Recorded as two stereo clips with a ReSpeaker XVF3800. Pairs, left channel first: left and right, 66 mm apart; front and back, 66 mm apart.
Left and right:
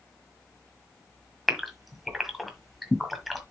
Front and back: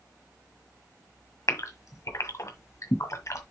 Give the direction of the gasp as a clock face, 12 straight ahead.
12 o'clock.